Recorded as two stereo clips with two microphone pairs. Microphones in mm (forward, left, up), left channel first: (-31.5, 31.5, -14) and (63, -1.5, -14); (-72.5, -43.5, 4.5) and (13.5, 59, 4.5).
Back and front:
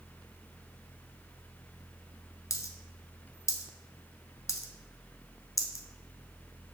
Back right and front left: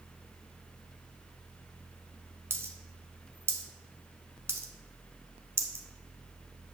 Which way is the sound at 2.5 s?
115° left.